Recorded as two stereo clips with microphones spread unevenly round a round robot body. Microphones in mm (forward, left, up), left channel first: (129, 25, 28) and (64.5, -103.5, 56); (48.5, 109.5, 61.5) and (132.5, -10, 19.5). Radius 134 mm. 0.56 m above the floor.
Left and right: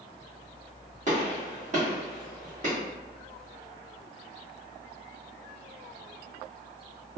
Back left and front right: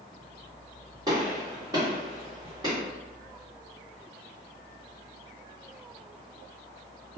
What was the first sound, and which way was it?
A gunshot, 95° right.